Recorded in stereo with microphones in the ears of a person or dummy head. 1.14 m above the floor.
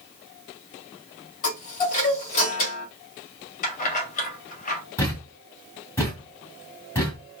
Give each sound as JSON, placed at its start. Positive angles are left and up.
{"t": 1.4, "sound": "a chime", "side_deg": 45, "distance_m": 1.7}
{"t": 3.6, "sound": "keys jangling", "side_deg": 45, "distance_m": 1.1}
{"t": 5.0, "sound": "a thud", "side_deg": 15, "distance_m": 2.0}